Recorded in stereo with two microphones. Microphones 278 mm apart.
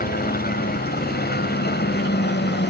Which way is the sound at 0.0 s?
30° left (ahead or behind).